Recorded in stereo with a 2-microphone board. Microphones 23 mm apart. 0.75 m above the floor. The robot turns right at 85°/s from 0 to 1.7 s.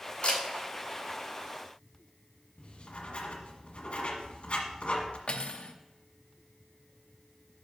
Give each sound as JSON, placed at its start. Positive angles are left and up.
{"t": 0.2, "sound": "a camera shutter", "side_deg": 60, "distance_m": 3.0}
{"t": 2.6, "sound": "writing", "side_deg": 55, "distance_m": 1.5}
{"t": 5.3, "sound": "cutlery clinking", "side_deg": 60, "distance_m": 0.7}